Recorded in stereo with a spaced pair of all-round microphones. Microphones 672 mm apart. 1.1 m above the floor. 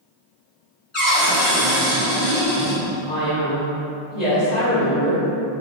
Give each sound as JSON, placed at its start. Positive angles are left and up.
{"t": 0.9, "sound": "a cupboard door", "side_deg": 50, "distance_m": 1.4}
{"t": 3.1, "sound": "a man speaking", "side_deg": 75, "distance_m": 1.7}